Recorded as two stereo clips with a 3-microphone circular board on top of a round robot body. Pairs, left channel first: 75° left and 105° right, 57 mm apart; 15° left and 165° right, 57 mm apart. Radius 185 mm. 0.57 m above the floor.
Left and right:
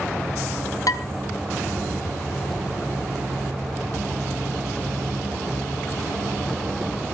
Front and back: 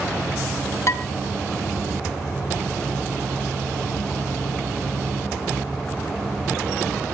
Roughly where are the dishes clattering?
Ahead left.